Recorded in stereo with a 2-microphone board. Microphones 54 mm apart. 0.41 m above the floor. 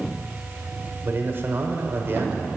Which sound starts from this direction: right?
A man speaking, at 1.0 s.